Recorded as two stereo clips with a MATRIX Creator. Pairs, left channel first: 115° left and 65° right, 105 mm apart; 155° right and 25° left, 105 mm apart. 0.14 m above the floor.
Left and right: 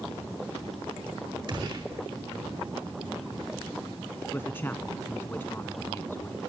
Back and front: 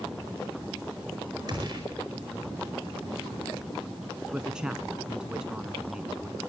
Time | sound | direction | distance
1.5 | a gunshot | 25° right | 5 m
4.3 | a man speaking | 90° left | 1.1 m